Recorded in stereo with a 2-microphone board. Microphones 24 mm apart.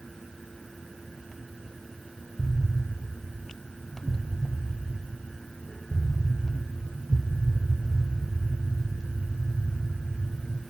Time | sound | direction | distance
2.4 | an explosion | 15° left (ahead or behind) | 1.9 m